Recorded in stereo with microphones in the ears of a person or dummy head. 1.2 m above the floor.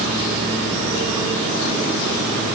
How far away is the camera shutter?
I don't hear a camera shutter.